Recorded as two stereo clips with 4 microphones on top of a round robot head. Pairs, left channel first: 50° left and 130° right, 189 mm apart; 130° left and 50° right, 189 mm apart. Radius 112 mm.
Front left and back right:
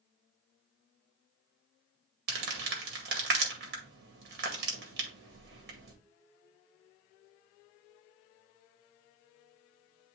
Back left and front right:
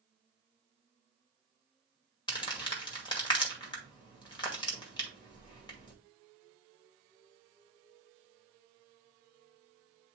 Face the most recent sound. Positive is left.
turn(degrees=-165)